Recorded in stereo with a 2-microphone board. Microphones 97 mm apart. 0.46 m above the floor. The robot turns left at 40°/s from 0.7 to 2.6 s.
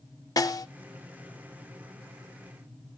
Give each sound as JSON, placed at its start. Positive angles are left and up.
{"t": 0.4, "sound": "a snare drum", "side_deg": 40, "distance_m": 0.5}